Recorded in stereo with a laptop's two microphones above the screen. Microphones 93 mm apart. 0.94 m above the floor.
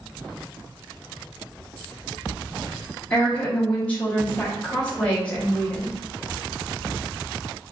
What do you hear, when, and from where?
3.1 s a woman speaking: 15° left (ahead or behind), 0.9 m